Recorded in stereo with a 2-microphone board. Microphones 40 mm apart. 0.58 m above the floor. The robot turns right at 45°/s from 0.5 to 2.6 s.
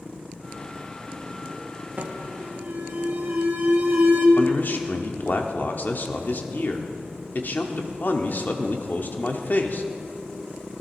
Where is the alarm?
45° right (ahead or behind), 1.9 m; by 4.3 s 60° right (ahead or behind), 1.9 m.